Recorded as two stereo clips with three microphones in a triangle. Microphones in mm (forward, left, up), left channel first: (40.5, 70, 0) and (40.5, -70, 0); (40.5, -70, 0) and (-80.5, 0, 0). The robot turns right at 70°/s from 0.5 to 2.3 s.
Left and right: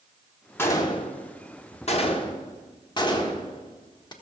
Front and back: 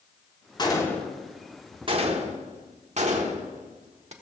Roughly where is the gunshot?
Ahead.